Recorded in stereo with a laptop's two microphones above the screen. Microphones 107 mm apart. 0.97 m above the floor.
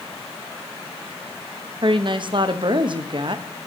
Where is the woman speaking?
50° right (ahead or behind), 0.9 m.